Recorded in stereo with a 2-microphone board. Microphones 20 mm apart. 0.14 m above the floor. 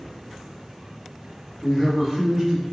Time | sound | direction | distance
1.6 | a man speaking | 25° left (ahead or behind) | 1.6 m